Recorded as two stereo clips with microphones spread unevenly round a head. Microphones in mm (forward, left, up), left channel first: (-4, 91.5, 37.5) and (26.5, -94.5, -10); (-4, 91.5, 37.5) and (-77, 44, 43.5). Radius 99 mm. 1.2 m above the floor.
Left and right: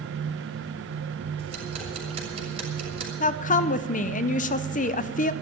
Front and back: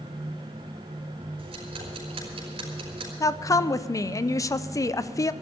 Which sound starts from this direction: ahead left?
A woman speaking, at 3.2 s.